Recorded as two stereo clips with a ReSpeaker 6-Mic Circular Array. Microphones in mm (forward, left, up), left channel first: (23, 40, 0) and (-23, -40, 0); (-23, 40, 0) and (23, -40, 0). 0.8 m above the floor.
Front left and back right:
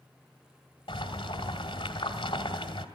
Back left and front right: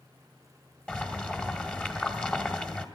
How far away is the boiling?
About 1.9 m.